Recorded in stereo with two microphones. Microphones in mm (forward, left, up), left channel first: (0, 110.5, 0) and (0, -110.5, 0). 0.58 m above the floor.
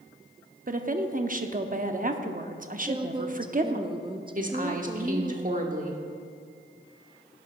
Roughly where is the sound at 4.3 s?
Right.